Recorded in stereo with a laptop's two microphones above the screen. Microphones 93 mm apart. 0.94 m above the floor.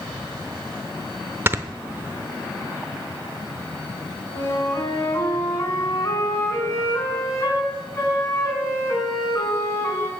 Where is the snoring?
25° right (ahead or behind), 0.7 m.